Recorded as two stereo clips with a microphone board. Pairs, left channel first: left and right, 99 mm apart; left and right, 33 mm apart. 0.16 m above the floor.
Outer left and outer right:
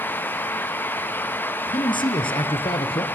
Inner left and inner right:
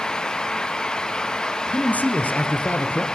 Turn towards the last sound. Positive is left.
turn(degrees=65)  # may be behind; listen again after turning